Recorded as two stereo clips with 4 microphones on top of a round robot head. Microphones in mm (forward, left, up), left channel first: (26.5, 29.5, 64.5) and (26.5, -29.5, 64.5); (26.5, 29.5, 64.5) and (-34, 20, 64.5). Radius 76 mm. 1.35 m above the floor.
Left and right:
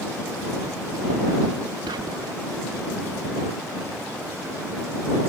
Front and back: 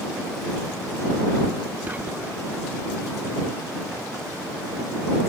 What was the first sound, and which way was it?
Whispering, 100° right.